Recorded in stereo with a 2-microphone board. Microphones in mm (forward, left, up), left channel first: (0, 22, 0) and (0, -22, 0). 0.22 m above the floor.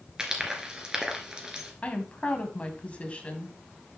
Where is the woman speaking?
30° left (ahead or behind), 1.6 m.